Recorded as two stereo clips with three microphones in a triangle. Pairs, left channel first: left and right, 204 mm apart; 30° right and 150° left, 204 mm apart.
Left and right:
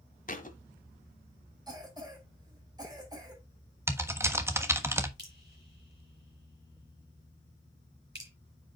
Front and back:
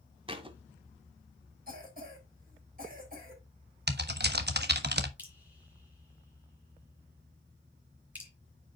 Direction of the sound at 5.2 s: 125° right.